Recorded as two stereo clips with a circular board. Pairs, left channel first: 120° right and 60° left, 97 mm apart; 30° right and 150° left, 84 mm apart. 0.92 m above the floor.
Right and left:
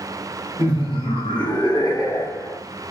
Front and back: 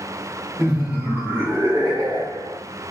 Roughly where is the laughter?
Behind right.